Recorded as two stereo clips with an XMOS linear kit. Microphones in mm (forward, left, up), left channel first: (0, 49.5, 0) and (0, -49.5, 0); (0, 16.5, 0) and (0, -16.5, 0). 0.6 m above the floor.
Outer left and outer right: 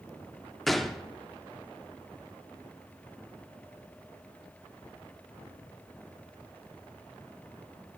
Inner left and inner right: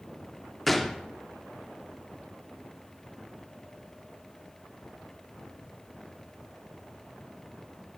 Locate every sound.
0.7 s a gunshot: centre (ahead or behind), 0.8 m